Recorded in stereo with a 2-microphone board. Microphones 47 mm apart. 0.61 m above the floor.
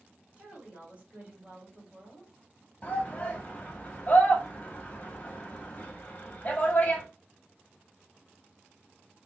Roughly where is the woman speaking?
Right.